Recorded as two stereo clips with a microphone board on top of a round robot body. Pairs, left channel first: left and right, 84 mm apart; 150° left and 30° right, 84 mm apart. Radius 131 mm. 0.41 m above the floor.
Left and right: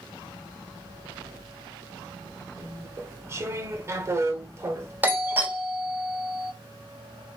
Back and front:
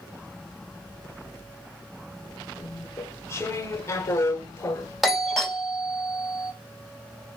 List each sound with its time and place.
2.6 s chewing: 150° right, 0.6 m
5.0 s a doorbell: 120° right, 1.2 m